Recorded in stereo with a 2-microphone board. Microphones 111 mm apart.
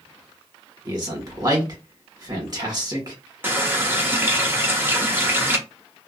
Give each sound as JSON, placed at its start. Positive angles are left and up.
{"t": 0.8, "sound": "a man speaking", "side_deg": -35, "distance_m": 1.3}
{"t": 3.4, "sound": "a running tap", "side_deg": -20, "distance_m": 0.6}